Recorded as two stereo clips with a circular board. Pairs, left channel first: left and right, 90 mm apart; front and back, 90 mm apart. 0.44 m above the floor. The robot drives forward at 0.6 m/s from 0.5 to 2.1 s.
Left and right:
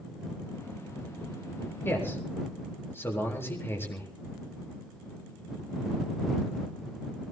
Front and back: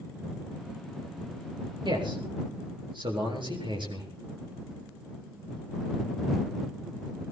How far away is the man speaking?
About 7.5 m.